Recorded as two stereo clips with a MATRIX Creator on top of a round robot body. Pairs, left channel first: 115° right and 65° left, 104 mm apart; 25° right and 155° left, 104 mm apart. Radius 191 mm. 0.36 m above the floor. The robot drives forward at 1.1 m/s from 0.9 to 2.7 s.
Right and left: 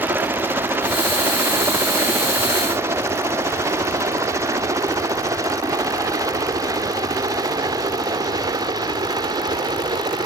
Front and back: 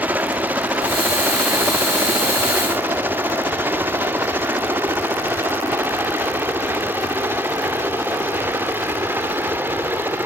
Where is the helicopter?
105° left; by 10.3 s 95° left.